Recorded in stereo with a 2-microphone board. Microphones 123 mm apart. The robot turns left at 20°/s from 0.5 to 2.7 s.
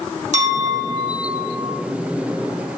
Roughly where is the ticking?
I don't hear ticking.